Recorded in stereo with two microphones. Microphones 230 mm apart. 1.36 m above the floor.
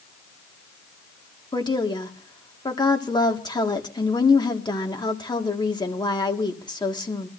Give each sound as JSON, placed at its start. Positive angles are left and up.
{"t": 1.5, "sound": "a woman speaking", "side_deg": 20, "distance_m": 1.6}